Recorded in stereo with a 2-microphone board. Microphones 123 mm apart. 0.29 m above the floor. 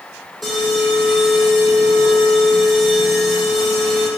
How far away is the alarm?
About 7.5 m.